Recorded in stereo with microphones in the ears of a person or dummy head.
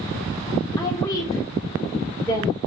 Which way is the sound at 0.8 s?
20° left (ahead or behind).